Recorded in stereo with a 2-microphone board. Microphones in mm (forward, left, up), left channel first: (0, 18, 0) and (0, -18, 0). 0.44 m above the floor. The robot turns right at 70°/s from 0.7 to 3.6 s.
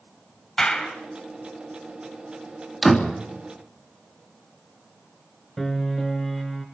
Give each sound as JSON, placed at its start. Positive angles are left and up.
{"t": 0.6, "sound": "a clap", "side_deg": 15, "distance_m": 3.5}
{"t": 2.8, "sound": "a door slam", "side_deg": 5, "distance_m": 3.0}
{"t": 5.6, "sound": "a piano", "side_deg": 10, "distance_m": 4.0}